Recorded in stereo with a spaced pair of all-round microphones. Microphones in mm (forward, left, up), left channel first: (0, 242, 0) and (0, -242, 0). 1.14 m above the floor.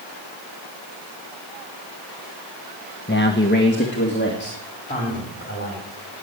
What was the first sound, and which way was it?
A man speaking, 20° left (ahead or behind).